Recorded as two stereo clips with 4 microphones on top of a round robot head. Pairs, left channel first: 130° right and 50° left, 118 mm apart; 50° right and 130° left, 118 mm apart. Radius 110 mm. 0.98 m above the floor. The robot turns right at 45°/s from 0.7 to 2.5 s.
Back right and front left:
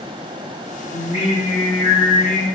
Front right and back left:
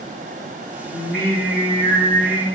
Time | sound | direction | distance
0.9 | singing | 105° left | 1.0 m